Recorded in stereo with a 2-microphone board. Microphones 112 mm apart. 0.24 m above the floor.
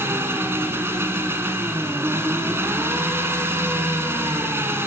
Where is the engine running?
20° right (ahead or behind), 1.5 m.